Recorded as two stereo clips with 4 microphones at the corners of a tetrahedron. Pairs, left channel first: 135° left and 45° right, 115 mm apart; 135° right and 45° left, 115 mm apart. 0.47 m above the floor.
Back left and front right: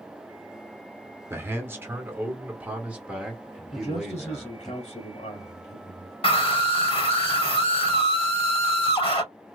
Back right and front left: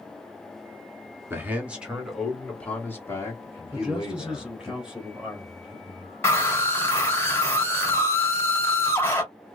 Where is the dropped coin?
I don't hear a dropped coin.